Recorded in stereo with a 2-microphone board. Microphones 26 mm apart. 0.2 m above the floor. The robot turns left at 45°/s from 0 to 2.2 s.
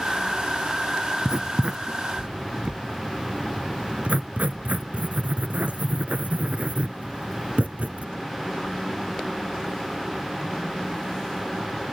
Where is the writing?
30° right (ahead or behind), 0.5 m; by 8.1 s 70° right (ahead or behind), 0.5 m.